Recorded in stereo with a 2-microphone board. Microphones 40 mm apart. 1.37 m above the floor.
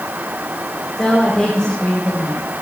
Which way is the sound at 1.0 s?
15° left (ahead or behind).